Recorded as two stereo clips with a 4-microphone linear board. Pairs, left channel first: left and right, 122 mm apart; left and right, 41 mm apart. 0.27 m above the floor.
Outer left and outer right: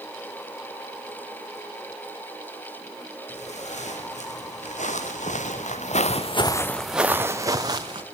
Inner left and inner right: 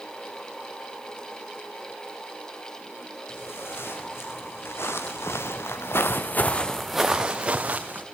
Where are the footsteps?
70° left (ahead or behind), 5 m; by 8.0 s 35° right (ahead or behind), 2.5 m.